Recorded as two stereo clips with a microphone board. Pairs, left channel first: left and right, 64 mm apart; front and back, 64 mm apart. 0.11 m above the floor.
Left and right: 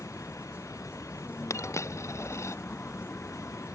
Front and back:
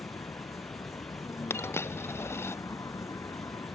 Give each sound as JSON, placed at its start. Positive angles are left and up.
{"t": 0.0, "sound": "a vehicle", "azimuth_deg": 35}
{"t": 1.5, "sound": "a dropped coin", "azimuth_deg": 50}